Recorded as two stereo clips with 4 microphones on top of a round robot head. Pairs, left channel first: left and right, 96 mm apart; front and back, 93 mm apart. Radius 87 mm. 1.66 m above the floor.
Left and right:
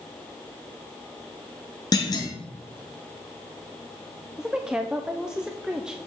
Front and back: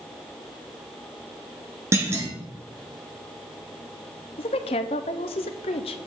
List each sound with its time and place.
1.9 s a clunk: 125° left, 1.3 m
4.4 s a woman speaking: 5° right, 0.5 m